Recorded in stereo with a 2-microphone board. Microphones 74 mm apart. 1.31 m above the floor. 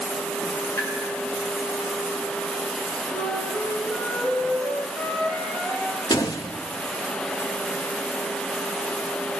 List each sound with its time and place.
0.8 s tapping: 40° left (ahead or behind), 8 m
3.1 s a flute: 25° left (ahead or behind), 8.5 m
6.1 s a door slam: 65° left (ahead or behind), 1.6 m